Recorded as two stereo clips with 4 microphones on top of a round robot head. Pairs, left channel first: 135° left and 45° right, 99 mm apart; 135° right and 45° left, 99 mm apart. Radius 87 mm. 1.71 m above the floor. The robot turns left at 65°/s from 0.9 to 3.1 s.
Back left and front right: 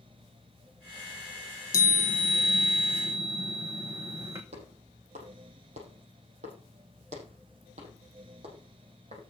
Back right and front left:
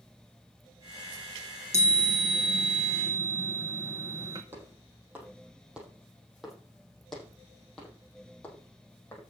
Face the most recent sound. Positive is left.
turn(degrees=-65)